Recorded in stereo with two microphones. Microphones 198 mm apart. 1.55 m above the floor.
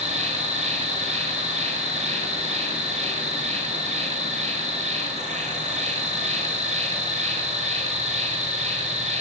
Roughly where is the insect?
Right.